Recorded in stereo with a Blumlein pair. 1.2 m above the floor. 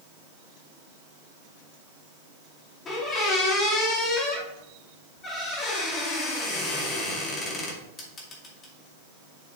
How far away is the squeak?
About 2 m.